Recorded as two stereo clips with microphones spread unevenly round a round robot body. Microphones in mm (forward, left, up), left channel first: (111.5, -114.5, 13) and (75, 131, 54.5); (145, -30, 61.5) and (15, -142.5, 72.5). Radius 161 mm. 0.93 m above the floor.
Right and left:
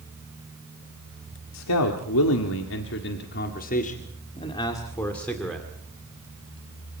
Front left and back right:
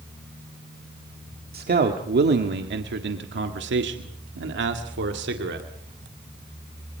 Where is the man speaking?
110° right, 1.9 m; by 5.7 s 170° right, 2 m.